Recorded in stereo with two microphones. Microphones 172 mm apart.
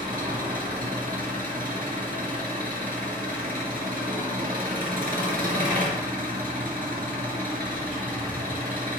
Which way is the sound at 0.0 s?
55° right (ahead or behind).